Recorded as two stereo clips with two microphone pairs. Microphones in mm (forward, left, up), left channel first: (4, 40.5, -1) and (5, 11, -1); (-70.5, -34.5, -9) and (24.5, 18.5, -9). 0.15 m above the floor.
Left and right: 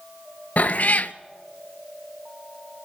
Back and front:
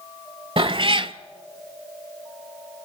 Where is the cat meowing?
65° left, 0.5 m.